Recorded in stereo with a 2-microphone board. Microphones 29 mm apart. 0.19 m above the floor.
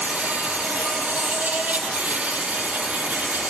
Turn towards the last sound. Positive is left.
turn(degrees=-75)  # may be behind; listen again after turning